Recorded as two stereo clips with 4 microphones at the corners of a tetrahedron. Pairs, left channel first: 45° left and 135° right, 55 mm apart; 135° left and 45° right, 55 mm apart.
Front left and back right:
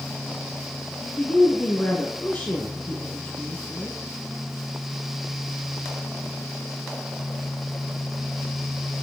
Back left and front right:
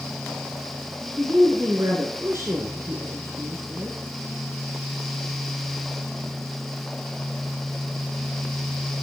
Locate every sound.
1.0 s a woman speaking: 10° right, 1.9 m